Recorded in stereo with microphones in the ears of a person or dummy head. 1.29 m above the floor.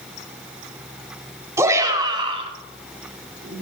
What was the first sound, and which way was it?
A shout, 20° right (ahead or behind).